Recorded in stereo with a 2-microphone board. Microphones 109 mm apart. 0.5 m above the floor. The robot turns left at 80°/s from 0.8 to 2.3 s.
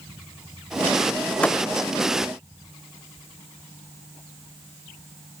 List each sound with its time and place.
1.4 s a thud: 10° left (ahead or behind); by 1.6 s 30° left (ahead or behind)